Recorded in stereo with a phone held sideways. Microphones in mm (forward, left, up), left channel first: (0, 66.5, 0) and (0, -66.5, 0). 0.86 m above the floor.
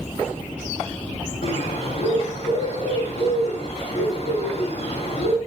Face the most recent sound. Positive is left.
turn(degrees=60)  # may be behind; listen again after turning